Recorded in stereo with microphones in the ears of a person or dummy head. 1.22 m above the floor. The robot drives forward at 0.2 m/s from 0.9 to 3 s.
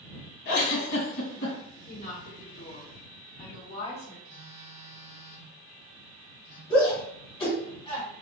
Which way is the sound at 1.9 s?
45° left (ahead or behind).